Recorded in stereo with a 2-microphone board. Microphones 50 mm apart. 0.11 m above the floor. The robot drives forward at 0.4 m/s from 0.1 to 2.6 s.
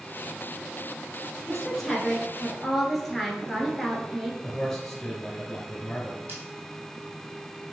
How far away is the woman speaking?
About 1.1 m.